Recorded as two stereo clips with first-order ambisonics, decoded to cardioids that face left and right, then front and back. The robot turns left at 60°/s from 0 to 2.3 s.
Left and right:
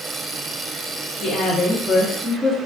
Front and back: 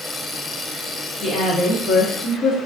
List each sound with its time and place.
1.2 s a woman speaking: 60° left, 0.7 m; by 2.6 s 5° right, 0.7 m